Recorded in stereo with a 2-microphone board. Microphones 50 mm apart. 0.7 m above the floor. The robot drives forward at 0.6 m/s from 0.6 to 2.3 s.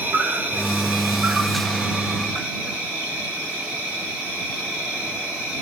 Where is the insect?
35° right (ahead or behind), 1.2 m; by 5.6 s 20° right (ahead or behind), 2 m.